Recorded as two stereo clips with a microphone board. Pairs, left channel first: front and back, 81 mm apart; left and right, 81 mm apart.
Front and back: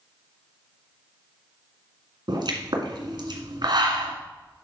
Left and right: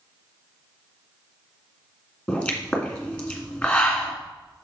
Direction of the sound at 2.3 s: 165° left.